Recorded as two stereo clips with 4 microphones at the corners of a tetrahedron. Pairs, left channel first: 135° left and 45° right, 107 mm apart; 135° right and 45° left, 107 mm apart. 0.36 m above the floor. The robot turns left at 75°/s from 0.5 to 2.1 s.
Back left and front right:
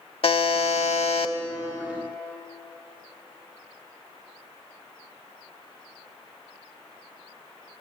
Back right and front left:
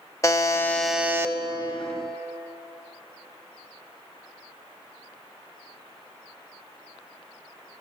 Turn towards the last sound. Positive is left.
turn(degrees=45)